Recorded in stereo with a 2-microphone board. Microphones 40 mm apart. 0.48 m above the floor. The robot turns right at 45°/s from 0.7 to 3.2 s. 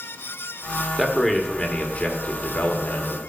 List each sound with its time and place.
1.0 s a man speaking: straight ahead, 1.2 m; by 3.2 s 100° left, 1.2 m